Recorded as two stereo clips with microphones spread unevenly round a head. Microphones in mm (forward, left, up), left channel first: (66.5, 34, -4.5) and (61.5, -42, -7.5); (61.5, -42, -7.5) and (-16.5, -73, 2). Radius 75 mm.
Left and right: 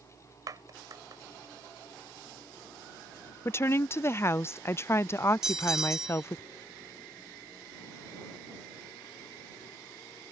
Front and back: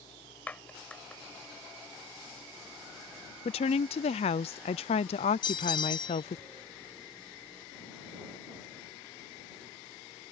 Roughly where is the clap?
Ahead right.